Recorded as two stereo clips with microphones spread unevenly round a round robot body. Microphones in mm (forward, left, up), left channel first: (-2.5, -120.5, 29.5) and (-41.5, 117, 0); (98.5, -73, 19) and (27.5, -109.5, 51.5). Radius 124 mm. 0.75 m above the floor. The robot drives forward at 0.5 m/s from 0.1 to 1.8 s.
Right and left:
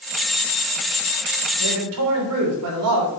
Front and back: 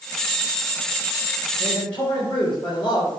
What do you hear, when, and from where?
1.6 s a man speaking: 100° left, 3 m